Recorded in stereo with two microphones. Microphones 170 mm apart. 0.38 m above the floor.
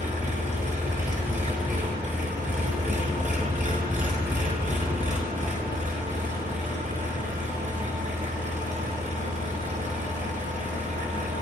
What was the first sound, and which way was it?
An engine running, 45° right (ahead or behind).